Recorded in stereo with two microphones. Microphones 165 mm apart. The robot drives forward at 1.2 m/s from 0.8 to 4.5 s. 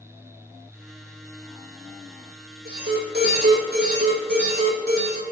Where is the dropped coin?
I don't hear a dropped coin.